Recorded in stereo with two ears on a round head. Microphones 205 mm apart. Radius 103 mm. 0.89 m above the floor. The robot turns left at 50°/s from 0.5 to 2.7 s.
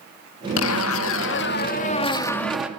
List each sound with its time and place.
0.6 s a zipper: 100° left, 1.8 m; by 2.7 s 5° right, 1.8 m